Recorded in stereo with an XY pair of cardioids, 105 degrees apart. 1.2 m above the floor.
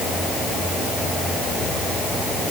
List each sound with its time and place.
Only background noise.